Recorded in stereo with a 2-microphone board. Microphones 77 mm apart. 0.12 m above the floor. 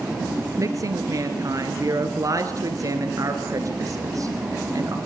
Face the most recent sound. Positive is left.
turn(degrees=-50)  # may be behind; listen again after turning